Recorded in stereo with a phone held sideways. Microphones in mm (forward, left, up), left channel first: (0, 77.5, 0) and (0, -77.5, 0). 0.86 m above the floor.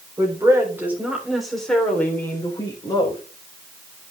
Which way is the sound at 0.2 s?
25° right (ahead or behind).